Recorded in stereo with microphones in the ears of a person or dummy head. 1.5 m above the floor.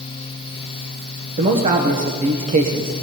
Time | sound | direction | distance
1.4 | a man speaking | 40° right (ahead or behind) | 1.0 m